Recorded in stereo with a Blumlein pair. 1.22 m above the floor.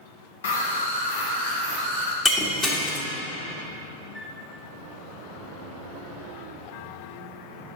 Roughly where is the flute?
Ahead.